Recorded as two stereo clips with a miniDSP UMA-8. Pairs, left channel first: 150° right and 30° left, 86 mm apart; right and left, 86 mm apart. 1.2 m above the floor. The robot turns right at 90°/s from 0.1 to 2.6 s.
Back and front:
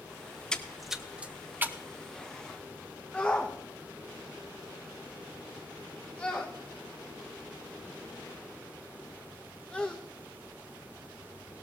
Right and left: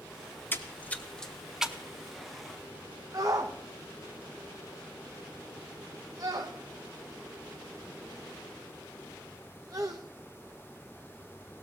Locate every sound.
0.5 s a splash: 85° right, 0.7 m; by 1.8 s 30° left, 0.7 m
3.1 s a shout: 135° left, 0.8 m